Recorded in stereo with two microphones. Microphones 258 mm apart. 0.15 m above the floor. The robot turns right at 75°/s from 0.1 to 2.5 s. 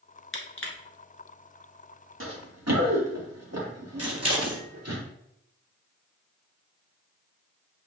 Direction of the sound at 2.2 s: 55° right (ahead or behind).